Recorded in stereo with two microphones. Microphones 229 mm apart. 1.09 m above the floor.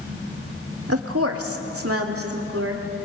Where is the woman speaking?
75° right (ahead or behind), 1.6 m; by 2.8 s 70° right (ahead or behind), 3.5 m.